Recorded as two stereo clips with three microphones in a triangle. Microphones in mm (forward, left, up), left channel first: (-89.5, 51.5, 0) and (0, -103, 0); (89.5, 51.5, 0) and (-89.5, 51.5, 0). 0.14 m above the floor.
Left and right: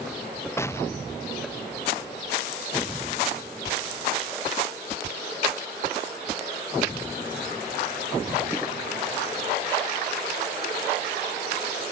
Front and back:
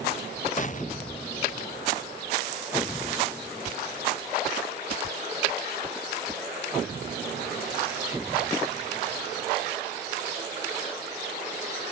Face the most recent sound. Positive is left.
turn(degrees=45)